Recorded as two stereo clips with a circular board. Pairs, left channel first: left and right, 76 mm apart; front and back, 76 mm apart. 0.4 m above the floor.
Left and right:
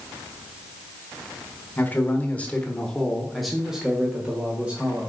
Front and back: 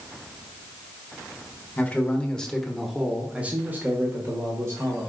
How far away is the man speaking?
About 1.2 m.